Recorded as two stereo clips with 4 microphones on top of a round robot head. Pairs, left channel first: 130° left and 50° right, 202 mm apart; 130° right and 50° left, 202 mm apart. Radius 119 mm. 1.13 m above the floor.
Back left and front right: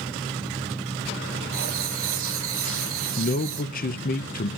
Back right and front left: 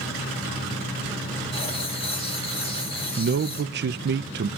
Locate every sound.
1.5 s writing: 65° right, 2 m
3.2 s a man speaking: 85° left, 0.7 m